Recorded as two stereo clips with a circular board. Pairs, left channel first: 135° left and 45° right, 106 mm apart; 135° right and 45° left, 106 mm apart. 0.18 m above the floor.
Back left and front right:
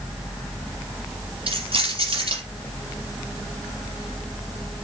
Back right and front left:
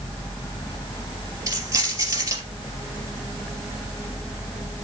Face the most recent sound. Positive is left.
turn(degrees=-15)